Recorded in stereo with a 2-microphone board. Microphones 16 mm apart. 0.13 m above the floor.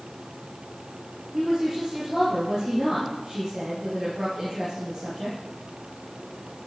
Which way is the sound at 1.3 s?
40° right (ahead or behind).